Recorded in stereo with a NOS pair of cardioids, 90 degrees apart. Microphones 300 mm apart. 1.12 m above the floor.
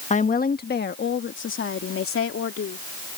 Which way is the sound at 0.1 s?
25° left.